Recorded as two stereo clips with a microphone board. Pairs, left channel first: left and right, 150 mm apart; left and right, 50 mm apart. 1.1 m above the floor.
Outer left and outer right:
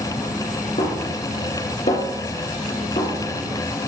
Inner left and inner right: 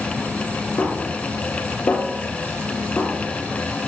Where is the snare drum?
50° left (ahead or behind), 6.5 m.